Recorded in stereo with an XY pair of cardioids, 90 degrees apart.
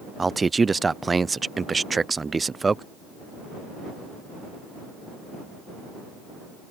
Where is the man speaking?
30° right.